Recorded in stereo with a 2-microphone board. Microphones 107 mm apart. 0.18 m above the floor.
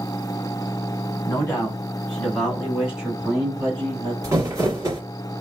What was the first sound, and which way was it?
A man speaking, 25° left (ahead or behind).